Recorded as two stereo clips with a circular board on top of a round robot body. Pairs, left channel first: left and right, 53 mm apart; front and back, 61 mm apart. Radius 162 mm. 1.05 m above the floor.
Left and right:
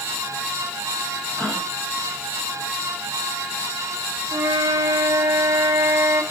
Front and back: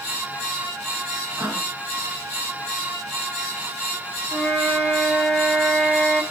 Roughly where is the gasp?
Behind.